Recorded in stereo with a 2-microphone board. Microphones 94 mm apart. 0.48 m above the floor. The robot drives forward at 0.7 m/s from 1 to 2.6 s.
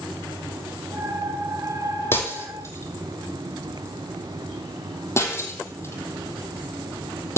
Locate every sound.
2.1 s breaking glass: 25° left (ahead or behind), 2.5 m; by 7.4 s 30° left (ahead or behind), 2 m